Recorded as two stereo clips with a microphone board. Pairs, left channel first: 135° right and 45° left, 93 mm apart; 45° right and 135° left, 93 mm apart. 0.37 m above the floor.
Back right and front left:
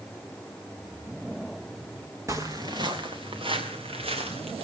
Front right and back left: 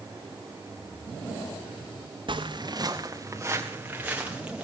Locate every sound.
2.3 s footsteps: 105° left, 2 m; by 4.7 s 55° left, 4.5 m